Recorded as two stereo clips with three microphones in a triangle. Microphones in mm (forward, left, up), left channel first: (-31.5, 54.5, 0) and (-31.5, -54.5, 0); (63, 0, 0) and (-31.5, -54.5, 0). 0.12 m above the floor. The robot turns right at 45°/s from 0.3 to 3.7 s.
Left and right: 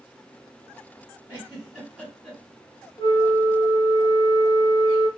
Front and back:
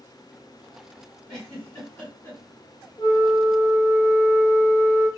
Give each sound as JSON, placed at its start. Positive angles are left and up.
{"t": 1.3, "sound": "a giggle", "azimuth_deg": -40, "distance_m": 1.7}
{"t": 3.0, "sound": "a flute", "azimuth_deg": 55, "distance_m": 0.9}